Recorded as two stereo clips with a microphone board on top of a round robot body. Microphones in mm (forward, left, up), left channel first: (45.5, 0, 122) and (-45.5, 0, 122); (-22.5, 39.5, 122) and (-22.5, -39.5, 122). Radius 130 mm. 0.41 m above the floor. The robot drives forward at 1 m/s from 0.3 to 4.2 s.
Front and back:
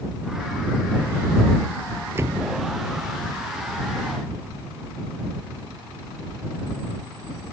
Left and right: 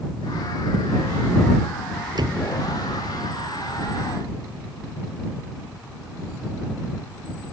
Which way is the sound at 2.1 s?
120° right.